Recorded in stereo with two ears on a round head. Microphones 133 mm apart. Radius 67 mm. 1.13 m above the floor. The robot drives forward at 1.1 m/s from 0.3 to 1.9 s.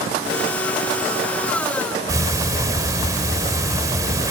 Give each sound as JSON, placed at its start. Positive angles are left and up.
{"t": 2.1, "sound": "ticking", "side_deg": -25, "distance_m": 1.7}